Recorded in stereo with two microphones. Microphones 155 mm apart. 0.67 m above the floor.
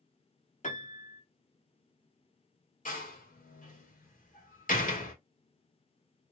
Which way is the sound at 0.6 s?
50° left (ahead or behind).